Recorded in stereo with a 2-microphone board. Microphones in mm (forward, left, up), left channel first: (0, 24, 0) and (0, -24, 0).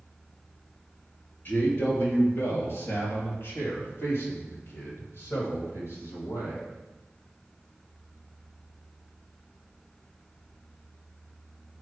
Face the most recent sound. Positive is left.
turn(degrees=70)  # may be behind; listen again after turning